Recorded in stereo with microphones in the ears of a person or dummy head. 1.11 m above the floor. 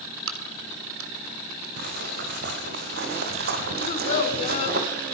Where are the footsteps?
65° right (ahead or behind), 5 m; by 4.8 s 55° right (ahead or behind), 2.5 m.